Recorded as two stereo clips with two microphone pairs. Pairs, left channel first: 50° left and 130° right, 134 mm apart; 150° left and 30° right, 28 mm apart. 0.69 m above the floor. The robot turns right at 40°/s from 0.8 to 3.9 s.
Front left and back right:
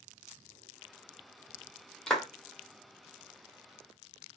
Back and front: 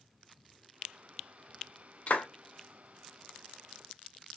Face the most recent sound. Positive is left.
turn(degrees=-150)